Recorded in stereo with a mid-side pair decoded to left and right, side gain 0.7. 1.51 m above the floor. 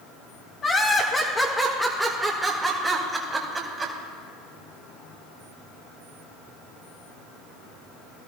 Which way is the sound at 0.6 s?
30° left.